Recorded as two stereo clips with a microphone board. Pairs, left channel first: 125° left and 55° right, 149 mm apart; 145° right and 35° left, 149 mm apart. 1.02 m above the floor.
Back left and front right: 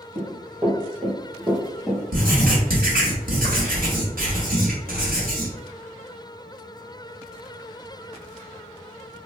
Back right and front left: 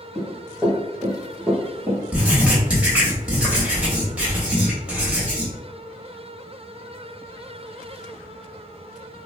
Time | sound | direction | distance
0.1 | running footsteps | 65° right | 1.4 m
2.1 | writing | 50° right | 0.9 m